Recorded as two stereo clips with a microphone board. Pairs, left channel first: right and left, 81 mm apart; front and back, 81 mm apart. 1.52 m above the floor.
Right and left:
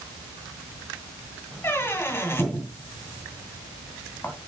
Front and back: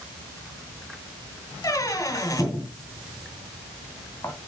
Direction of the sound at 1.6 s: 35° right.